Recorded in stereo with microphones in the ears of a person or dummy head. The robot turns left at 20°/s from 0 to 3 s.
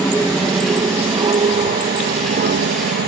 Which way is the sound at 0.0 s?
Centre (ahead or behind).